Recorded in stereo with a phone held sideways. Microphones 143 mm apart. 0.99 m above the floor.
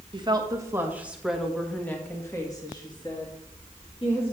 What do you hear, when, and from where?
0.1 s a woman speaking: 35° right (ahead or behind), 1.2 m; by 4.3 s 45° left (ahead or behind), 2.5 m